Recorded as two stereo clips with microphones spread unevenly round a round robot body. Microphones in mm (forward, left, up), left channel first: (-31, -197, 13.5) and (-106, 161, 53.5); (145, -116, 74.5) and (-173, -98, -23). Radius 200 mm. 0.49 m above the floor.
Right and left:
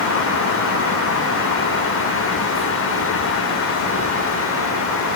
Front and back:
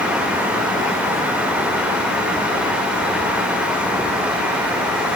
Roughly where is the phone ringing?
No phone ringing in this recording.